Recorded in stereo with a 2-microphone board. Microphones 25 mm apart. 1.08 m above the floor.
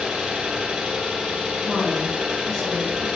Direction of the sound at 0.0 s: 45° right (ahead or behind).